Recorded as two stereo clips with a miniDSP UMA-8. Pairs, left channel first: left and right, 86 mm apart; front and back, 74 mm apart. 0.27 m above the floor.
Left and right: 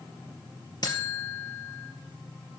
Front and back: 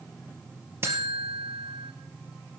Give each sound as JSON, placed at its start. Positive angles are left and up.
{"t": 0.8, "sound": "a buzzer", "azimuth_deg": 125, "distance_m": 1.9}